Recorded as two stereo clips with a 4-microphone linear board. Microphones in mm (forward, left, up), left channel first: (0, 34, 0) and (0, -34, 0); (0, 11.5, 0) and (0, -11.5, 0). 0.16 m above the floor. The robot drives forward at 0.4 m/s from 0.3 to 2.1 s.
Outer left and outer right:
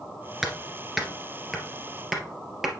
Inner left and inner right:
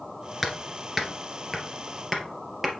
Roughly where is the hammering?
Centre.